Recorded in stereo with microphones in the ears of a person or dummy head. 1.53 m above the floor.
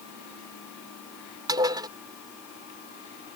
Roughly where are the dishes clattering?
Right.